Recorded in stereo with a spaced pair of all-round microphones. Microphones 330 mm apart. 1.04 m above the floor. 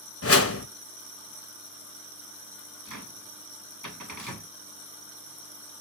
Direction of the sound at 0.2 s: 45° left (ahead or behind).